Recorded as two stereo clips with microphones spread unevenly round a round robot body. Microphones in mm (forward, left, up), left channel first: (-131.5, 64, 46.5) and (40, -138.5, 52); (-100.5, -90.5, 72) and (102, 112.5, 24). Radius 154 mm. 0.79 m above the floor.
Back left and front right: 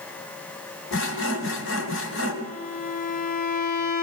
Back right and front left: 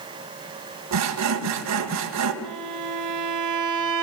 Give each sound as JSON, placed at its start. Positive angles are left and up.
{"t": 0.9, "sound": "sawing", "azimuth_deg": 80, "distance_m": 2.5}
{"t": 2.4, "sound": "a violin", "azimuth_deg": 65, "distance_m": 2.5}